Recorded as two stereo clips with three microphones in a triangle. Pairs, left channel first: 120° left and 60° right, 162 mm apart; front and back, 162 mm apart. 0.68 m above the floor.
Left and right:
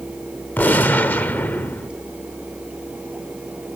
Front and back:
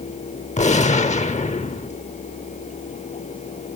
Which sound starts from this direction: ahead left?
A gunshot, at 0.6 s.